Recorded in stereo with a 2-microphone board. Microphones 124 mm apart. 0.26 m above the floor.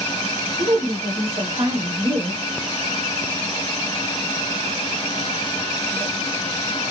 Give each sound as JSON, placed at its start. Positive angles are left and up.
{"t": 0.6, "sound": "a woman speaking", "side_deg": -45, "distance_m": 1.4}